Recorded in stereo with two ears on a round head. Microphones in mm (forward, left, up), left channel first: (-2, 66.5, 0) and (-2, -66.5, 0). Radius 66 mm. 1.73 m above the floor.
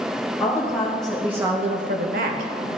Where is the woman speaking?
15° left (ahead or behind), 2 m; by 2.7 s 50° right (ahead or behind), 1.7 m.